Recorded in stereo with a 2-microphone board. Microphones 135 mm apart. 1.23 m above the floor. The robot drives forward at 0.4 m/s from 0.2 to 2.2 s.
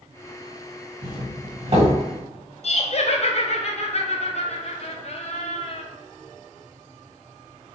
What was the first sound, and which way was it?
A doorbell, 60° right (ahead or behind).